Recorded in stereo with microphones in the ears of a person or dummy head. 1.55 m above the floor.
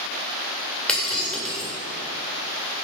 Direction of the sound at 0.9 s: 5° left (ahead or behind).